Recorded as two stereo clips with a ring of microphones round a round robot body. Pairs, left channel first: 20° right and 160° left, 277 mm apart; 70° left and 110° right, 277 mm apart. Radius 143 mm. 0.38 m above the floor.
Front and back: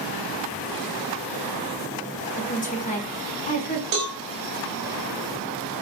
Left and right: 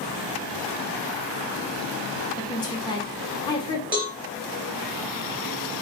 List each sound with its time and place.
2.4 s a woman speaking: 10° left, 1.2 m
3.9 s a cowbell: 165° left, 2 m